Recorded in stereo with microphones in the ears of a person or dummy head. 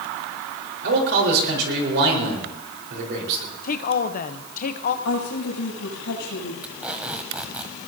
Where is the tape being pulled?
10° right (ahead or behind), 1.4 m.